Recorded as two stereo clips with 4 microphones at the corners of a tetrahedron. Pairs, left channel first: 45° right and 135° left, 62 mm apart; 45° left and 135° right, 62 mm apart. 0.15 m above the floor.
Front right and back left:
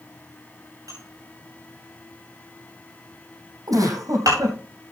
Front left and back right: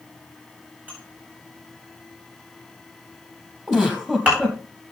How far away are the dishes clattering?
About 9.5 m.